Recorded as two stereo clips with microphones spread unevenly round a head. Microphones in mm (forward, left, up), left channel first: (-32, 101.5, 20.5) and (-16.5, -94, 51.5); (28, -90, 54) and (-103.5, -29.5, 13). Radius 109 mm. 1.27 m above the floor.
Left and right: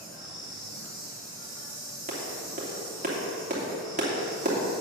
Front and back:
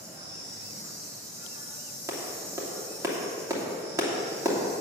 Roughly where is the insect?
Behind.